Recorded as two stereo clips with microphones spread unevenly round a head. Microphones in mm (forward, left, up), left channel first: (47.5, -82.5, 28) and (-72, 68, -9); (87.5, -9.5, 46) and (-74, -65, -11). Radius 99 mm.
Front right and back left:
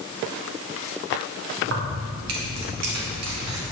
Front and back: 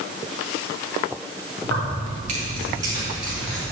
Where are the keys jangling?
160° left, 2 m; by 3.6 s 100° left, 3 m.